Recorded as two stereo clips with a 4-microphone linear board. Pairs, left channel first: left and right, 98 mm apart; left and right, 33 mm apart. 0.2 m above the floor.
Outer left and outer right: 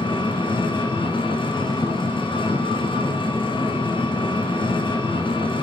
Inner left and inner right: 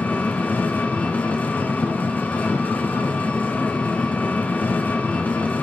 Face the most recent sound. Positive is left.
turn(degrees=55)  # may be behind; listen again after turning